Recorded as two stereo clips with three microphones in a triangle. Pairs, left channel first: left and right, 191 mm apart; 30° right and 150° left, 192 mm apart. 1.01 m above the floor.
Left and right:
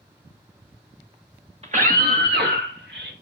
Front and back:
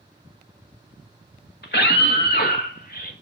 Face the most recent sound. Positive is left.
turn(degrees=-75)